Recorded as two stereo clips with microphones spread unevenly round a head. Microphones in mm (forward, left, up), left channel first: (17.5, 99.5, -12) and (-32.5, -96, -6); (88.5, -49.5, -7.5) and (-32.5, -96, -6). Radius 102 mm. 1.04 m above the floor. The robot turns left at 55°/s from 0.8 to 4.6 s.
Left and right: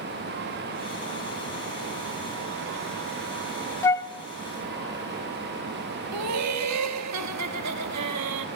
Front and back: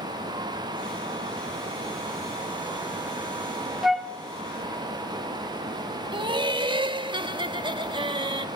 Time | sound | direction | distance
3.8 | a flute | 115° left | 0.7 m
6.1 | laughter | 105° right | 1.8 m